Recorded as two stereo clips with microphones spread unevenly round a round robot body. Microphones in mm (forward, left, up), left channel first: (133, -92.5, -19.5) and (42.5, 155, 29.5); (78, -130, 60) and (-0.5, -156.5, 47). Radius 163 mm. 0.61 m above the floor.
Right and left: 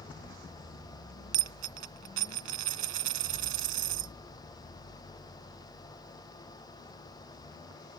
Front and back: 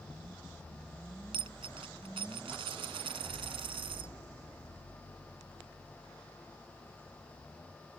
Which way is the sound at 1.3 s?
155° left.